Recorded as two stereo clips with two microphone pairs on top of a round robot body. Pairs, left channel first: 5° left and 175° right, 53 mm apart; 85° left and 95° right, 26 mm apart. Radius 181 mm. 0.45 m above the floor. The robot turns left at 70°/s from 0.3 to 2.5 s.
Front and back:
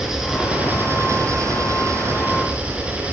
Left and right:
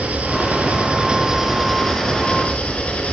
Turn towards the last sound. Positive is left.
turn(degrees=115)